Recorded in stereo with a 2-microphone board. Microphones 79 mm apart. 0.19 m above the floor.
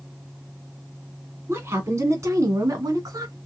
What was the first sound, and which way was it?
A woman speaking, 30° right (ahead or behind).